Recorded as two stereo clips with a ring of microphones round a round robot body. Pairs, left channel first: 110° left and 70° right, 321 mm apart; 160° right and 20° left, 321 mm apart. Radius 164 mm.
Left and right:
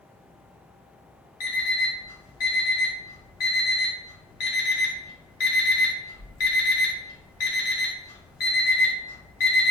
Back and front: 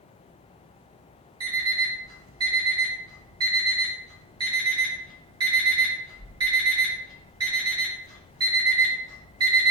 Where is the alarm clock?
100° left, 1.2 m.